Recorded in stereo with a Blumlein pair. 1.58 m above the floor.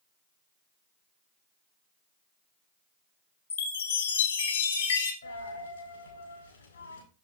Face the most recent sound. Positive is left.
turn(degrees=70)